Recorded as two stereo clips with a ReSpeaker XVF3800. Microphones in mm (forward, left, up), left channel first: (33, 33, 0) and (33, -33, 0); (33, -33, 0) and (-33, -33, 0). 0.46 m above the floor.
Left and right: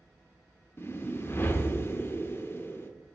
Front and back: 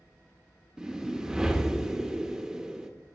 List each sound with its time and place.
0.8 s a whoosh: 105° left, 0.6 m